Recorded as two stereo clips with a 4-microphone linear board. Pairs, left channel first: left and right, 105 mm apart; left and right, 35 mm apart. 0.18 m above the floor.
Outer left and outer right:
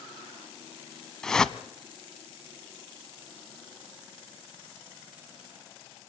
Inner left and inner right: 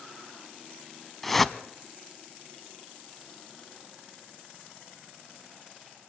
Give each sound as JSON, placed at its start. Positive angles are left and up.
{"t": 1.2, "sound": "a whoosh", "side_deg": 5, "distance_m": 0.8}